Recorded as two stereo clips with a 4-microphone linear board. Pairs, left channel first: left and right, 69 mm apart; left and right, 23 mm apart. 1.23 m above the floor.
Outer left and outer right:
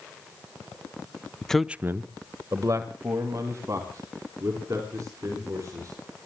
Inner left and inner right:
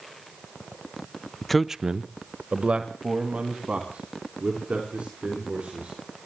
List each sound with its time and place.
1.4 s a man speaking: 15° left (ahead or behind), 0.6 m; by 6.0 s 50° right (ahead or behind), 6 m